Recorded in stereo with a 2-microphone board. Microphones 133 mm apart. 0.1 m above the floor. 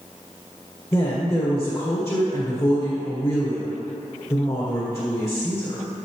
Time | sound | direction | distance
0.9 | a woman speaking | 20° left (ahead or behind) | 2 m